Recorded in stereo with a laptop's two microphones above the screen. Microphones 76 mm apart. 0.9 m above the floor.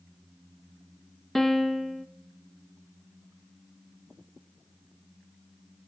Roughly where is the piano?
Centre.